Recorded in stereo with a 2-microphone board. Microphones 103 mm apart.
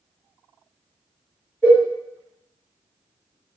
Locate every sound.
1.6 s a cowbell: 20° left (ahead or behind), 0.9 m